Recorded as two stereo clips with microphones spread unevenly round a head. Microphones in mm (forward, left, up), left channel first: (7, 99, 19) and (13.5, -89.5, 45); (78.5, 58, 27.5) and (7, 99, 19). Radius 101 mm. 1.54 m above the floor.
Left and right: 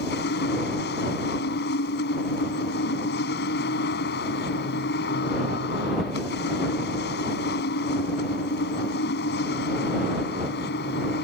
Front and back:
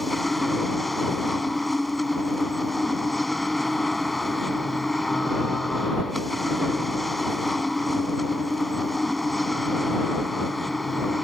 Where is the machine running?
60° left.